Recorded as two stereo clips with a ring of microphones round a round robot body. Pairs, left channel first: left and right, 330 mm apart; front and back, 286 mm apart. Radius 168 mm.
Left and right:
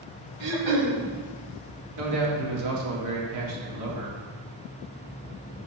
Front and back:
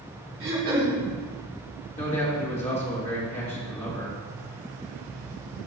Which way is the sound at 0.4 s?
120° right.